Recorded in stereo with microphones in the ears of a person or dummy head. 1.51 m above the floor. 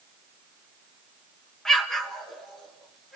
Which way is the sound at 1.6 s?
5° left (ahead or behind).